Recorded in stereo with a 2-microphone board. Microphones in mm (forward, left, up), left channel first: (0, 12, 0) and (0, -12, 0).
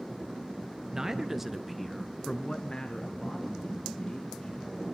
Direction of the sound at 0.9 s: 20° right (ahead or behind).